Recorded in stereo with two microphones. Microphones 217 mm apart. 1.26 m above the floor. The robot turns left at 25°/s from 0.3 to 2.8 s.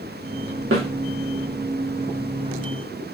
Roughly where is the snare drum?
Right.